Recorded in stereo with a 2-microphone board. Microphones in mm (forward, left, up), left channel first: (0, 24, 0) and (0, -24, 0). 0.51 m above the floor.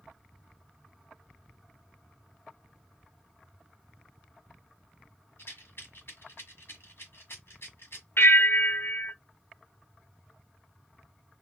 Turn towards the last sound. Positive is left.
turn(degrees=65)  # may be behind; listen again after turning